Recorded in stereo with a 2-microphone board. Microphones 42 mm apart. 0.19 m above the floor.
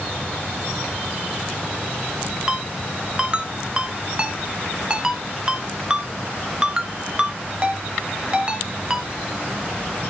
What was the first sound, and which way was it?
A ringtone, 20° right (ahead or behind).